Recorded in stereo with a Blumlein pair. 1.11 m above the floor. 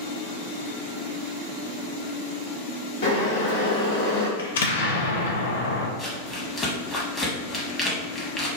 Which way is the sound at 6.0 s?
15° left.